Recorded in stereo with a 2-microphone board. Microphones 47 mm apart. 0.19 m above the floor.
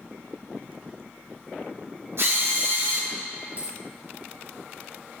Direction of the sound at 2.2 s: 60° right (ahead or behind).